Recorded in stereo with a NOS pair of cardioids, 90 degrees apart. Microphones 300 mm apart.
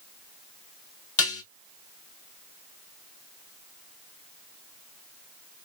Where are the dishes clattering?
50° left, 0.8 m.